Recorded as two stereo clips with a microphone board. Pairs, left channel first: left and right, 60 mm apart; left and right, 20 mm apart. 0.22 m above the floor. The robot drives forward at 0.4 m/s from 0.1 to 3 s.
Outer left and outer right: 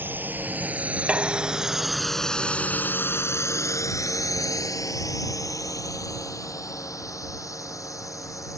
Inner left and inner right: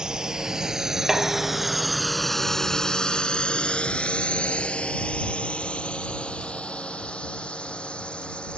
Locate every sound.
0.0 s a drone: 35° right (ahead or behind); by 8.6 s 65° left (ahead or behind)
1.1 s dishes clattering: 20° right (ahead or behind); by 2.0 s 25° right (ahead or behind)